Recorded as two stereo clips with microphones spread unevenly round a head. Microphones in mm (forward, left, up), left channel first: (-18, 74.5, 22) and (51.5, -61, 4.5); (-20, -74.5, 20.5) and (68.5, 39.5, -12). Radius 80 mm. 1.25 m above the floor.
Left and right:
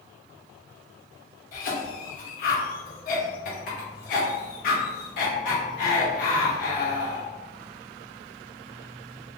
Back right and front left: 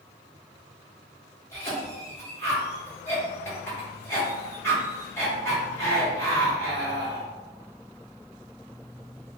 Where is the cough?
160° left, 1.2 m.